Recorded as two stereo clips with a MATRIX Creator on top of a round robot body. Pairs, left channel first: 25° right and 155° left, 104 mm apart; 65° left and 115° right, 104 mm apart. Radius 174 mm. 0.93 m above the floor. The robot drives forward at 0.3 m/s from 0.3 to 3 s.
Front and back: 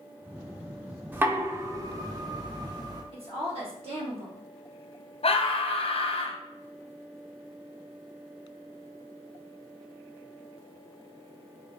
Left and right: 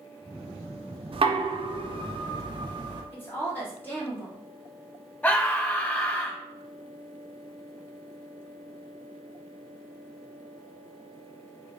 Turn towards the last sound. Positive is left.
turn(degrees=-10)